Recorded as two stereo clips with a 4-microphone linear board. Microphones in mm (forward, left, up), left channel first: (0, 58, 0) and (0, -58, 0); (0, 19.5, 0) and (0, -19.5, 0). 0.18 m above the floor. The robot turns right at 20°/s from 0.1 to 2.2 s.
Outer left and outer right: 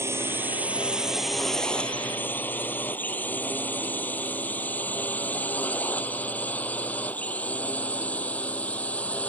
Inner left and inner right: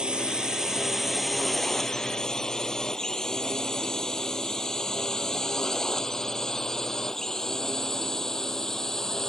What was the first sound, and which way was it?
A drone, 20° right (ahead or behind).